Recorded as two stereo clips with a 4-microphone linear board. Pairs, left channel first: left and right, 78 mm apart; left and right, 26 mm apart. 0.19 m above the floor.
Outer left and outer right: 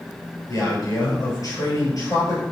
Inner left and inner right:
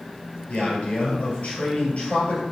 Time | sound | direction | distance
0.5 | a man speaking | 45° left (ahead or behind) | 3.5 m